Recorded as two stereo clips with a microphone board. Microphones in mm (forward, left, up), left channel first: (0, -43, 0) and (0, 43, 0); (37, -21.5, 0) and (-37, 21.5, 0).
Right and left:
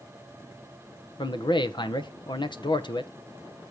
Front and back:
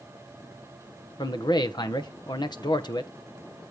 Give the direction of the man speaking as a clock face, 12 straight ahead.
2 o'clock.